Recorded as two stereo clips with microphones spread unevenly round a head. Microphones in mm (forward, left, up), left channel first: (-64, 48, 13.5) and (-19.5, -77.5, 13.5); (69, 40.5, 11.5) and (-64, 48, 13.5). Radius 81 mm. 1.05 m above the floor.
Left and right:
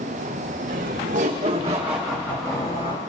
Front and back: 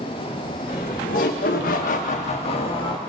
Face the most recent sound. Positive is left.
turn(degrees=50)